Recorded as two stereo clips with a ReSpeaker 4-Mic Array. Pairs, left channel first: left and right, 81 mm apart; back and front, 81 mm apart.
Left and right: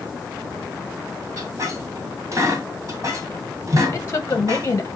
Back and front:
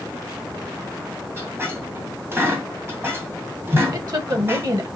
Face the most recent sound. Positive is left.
turn(degrees=35)